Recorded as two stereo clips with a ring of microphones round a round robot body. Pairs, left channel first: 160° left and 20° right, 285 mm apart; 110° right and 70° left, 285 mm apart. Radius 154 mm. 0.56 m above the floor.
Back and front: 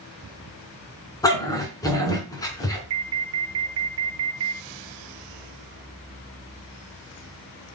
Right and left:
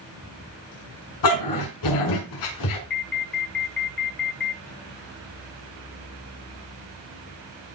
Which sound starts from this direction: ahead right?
An alarm, at 2.9 s.